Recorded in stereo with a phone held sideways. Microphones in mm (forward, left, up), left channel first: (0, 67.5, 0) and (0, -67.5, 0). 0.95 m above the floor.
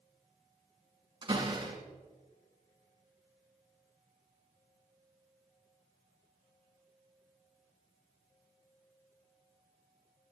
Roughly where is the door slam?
Right.